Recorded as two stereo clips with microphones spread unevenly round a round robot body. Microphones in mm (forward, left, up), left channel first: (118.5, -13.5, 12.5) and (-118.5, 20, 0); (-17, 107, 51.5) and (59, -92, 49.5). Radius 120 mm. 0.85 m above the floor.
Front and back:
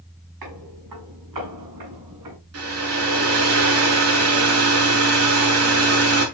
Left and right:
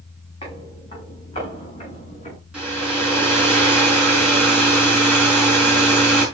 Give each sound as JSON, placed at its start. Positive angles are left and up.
{"t": 0.4, "sound": "footsteps", "azimuth_deg": 180, "distance_m": 7.0}
{"t": 2.5, "sound": "a hair dryer", "azimuth_deg": -155, "distance_m": 5.5}